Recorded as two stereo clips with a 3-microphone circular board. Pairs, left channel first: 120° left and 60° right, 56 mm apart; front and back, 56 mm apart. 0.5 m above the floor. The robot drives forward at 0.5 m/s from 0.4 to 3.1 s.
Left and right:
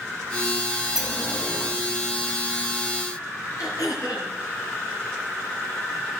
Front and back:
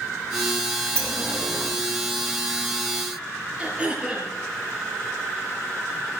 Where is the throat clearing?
110° left, 6.5 m.